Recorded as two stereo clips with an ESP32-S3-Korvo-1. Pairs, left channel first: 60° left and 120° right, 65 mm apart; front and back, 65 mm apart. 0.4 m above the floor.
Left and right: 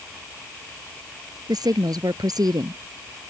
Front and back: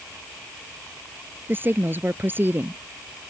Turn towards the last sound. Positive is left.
turn(degrees=-125)